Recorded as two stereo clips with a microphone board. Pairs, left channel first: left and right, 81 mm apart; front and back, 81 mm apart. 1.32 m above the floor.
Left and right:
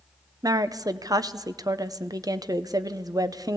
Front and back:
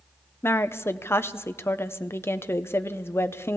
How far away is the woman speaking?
About 0.8 m.